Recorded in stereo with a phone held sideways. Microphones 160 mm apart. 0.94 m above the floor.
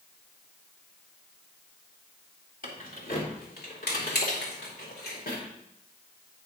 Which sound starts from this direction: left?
Keys jangling, at 2.6 s.